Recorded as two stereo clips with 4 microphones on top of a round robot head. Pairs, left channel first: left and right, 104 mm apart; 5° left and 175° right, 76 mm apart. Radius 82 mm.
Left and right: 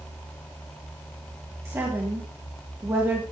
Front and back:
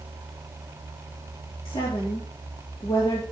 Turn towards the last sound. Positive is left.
turn(degrees=-25)